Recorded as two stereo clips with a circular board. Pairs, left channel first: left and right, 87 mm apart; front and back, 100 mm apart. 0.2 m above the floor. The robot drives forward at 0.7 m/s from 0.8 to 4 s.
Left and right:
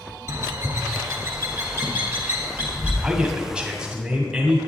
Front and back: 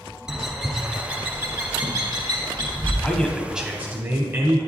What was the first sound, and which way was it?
A bird, 100° right.